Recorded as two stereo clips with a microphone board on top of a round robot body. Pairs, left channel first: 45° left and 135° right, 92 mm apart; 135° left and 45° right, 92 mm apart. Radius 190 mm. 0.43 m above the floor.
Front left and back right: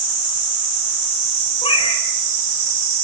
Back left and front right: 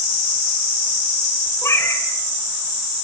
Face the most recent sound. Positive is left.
turn(degrees=70)